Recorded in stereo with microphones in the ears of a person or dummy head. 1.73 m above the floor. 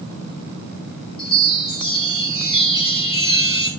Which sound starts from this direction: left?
A chime, at 1.2 s.